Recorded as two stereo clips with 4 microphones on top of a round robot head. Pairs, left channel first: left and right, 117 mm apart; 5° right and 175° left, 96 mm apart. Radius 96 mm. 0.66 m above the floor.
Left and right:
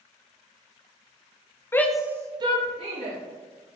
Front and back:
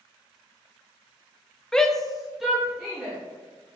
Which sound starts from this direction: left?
A shout, at 1.7 s.